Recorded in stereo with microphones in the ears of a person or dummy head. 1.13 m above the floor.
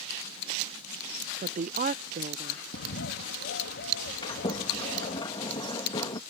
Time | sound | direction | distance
1.4 | a woman speaking | 40° right (ahead or behind) | ?
2.7 | a bird | 55° left (ahead or behind) | ?
4.2 | a sliding door | 20° left (ahead or behind) | ?